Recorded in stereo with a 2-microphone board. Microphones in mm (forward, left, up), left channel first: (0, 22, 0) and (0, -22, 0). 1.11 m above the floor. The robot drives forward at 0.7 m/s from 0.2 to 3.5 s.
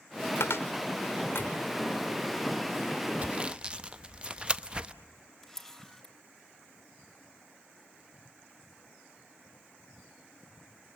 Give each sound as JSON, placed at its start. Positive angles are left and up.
{"t": 0.4, "sound": "a cupboard door", "side_deg": 70, "distance_m": 1.5}
{"t": 3.2, "sound": "sawing", "side_deg": -30, "distance_m": 0.5}
{"t": 5.4, "sound": "a camera shutter", "side_deg": 10, "distance_m": 2.5}